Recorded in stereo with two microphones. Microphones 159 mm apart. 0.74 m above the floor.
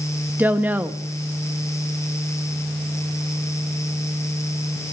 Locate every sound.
0.4 s a woman speaking: 10° right (ahead or behind), 0.7 m